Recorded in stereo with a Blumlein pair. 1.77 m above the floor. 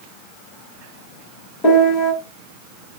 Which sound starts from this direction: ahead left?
A piano, at 1.6 s.